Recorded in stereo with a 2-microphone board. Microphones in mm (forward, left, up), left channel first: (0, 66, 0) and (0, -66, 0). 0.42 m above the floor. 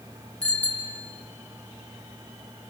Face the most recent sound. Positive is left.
turn(degrees=10)  # may be behind; listen again after turning